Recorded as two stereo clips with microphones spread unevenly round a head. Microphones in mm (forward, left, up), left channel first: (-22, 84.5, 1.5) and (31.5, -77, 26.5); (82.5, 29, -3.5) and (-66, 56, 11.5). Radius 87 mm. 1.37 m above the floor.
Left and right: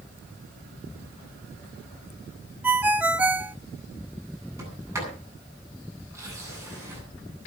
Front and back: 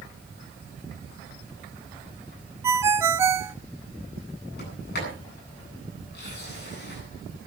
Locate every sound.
2.6 s a ringtone: 135° right, 0.8 m
4.6 s a sliding door: straight ahead, 9.5 m